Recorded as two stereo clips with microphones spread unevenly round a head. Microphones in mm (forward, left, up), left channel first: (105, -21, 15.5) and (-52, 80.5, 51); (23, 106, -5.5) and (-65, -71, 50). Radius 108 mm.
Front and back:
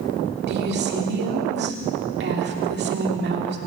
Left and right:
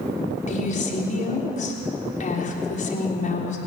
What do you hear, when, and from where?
0.5 s a woman speaking: 115° left, 3.5 m